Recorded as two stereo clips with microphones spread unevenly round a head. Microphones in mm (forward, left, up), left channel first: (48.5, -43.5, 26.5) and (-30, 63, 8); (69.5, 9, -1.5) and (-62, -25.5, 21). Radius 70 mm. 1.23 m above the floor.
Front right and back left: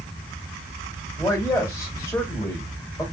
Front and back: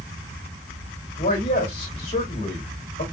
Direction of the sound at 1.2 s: 15° left.